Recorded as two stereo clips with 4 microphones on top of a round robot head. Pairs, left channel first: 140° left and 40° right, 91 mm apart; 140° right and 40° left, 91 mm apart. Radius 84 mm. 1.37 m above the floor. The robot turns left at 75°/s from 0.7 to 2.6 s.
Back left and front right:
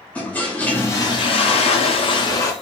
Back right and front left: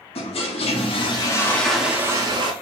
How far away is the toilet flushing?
About 0.7 m.